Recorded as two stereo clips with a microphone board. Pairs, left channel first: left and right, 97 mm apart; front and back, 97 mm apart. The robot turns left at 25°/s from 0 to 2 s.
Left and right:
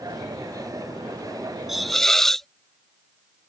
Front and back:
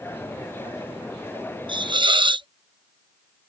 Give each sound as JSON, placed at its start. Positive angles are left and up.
{"t": 1.7, "sound": "a hiss", "azimuth_deg": -175}